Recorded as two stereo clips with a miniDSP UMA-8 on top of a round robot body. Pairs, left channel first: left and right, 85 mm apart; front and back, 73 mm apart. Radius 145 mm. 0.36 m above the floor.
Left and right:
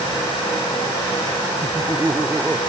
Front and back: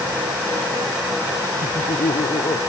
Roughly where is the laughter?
Ahead.